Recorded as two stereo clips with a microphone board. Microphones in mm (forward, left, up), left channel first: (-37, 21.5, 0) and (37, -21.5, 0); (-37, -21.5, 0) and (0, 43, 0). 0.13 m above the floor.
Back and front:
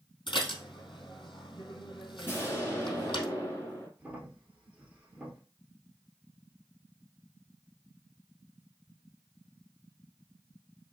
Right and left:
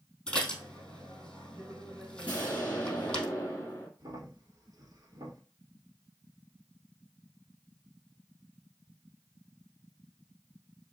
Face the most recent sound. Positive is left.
turn(degrees=40)